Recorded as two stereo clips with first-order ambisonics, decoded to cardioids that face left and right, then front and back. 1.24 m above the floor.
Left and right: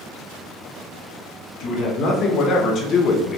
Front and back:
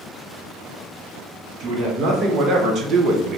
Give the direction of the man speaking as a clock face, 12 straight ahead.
8 o'clock.